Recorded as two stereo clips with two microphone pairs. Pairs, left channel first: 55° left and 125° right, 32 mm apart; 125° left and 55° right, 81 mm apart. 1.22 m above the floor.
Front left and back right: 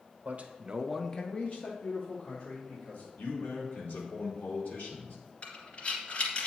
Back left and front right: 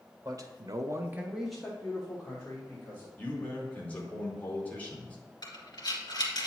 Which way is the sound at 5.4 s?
95° left.